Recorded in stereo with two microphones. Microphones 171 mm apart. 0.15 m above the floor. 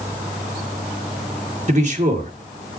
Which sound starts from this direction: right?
A man speaking, at 1.7 s.